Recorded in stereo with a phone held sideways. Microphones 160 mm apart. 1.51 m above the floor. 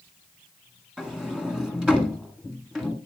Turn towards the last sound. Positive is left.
turn(degrees=-5)  # may be behind; listen again after turning